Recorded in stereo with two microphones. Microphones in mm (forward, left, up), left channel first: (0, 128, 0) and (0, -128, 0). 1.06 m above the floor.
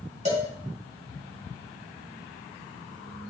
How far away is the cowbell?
About 2 m.